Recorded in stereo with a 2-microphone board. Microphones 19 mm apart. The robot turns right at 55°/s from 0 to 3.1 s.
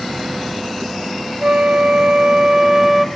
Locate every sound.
1.4 s a flute: 100° right, 1.2 m; by 3.0 s 10° right, 1.2 m